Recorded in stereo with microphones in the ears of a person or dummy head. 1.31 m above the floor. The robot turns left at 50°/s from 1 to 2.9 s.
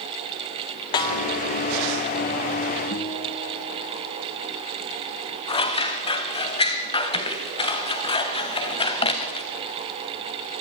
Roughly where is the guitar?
Left.